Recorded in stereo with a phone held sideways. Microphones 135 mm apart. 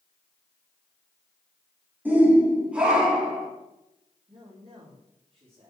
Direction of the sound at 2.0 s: 10° right (ahead or behind).